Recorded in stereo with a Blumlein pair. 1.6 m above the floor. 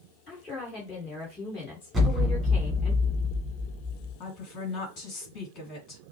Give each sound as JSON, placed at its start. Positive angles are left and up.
{"t": 0.3, "sound": "a woman speaking", "azimuth_deg": 20, "distance_m": 2.0}
{"t": 1.9, "sound": "an explosion", "azimuth_deg": -5, "distance_m": 1.7}
{"t": 4.2, "sound": "a woman speaking", "azimuth_deg": 40, "distance_m": 2.5}